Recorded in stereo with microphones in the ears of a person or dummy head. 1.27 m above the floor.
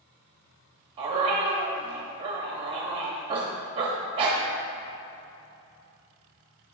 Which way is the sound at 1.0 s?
30° right (ahead or behind).